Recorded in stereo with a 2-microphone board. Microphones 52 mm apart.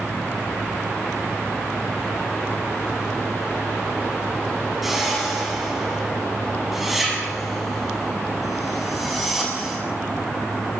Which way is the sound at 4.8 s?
5° right (ahead or behind).